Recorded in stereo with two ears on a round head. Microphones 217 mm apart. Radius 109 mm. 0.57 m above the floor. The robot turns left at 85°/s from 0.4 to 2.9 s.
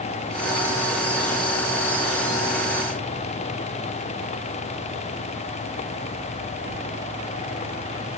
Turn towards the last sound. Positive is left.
No sound to turn to.